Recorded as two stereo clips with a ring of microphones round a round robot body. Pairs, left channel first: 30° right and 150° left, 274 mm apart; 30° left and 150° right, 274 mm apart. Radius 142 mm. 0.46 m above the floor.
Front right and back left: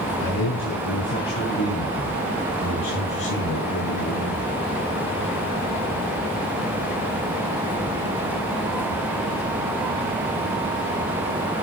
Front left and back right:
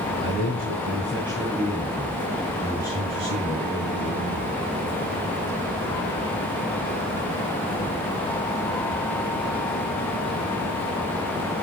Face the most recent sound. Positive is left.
turn(degrees=-40)